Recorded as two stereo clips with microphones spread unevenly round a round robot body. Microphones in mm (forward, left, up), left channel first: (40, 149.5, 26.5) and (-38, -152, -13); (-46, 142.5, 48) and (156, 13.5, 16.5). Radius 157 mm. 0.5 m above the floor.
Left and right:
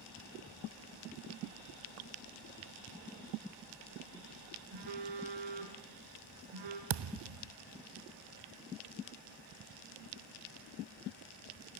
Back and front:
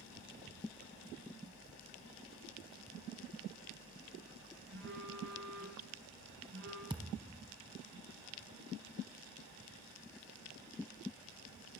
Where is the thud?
110° right, 0.6 m.